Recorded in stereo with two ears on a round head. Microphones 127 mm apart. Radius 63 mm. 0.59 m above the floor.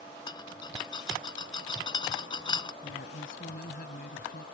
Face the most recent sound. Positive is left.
turn(degrees=70)  # may be behind; listen again after turning